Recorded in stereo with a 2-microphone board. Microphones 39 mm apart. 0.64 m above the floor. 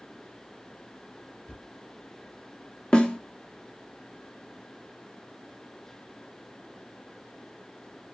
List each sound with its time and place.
1.5 s a thud: 15° left (ahead or behind), 2 m
2.9 s a snare drum: 25° left (ahead or behind), 0.9 m